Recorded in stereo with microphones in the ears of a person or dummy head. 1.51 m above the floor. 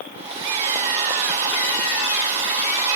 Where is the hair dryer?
30° right (ahead or behind), 1.9 m.